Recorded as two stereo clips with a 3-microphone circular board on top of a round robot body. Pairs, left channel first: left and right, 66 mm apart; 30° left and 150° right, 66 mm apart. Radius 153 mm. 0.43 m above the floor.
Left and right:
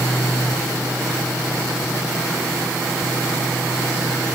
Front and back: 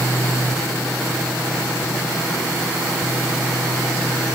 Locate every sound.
Only background noise.